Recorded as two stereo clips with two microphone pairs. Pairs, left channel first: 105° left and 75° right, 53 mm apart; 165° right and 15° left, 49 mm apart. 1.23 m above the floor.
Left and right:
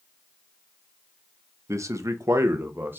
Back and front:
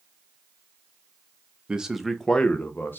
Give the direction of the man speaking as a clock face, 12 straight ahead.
2 o'clock.